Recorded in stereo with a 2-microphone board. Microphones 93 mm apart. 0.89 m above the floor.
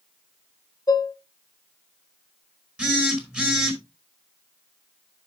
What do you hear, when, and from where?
0.9 s dishes clattering: 40° left (ahead or behind), 0.9 m
2.8 s a phone buzzing: 10° right (ahead or behind), 3 m